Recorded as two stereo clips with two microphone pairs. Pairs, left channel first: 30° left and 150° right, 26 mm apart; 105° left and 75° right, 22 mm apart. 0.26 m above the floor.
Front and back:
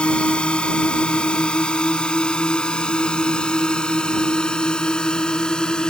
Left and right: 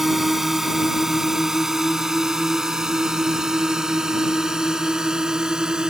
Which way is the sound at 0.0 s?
5° right.